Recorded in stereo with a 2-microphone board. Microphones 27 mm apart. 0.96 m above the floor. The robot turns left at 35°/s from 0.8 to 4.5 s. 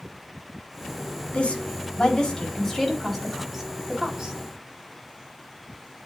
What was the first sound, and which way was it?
A woman speaking, 65° left (ahead or behind).